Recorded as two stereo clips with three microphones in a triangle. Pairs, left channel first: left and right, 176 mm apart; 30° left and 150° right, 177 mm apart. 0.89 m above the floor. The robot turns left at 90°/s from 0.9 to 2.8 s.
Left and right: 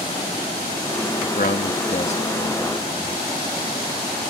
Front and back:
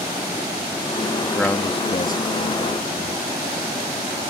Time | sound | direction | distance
1.2 | a man speaking | 130° left | ?